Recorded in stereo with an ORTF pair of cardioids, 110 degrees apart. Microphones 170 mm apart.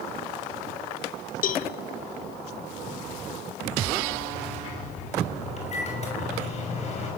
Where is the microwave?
40° left, 6 m.